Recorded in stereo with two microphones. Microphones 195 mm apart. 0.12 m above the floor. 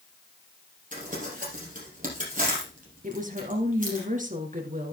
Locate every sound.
0.9 s crumpling: 45° right (ahead or behind), 5 m
3.0 s a woman speaking: 40° right (ahead or behind), 2 m